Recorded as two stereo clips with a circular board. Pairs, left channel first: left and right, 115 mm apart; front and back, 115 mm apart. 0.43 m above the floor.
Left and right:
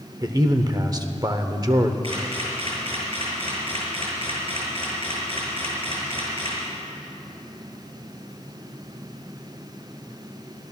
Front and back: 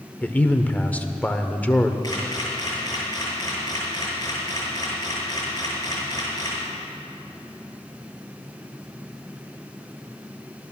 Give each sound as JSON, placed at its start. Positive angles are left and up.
{"t": 0.2, "sound": "a man speaking", "azimuth_deg": -65, "distance_m": 0.9}
{"t": 2.0, "sound": "a camera shutter", "azimuth_deg": -60, "distance_m": 6.0}